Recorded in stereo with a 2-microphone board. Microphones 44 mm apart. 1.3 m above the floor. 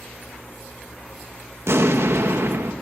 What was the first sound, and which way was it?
An explosion, 70° right (ahead or behind).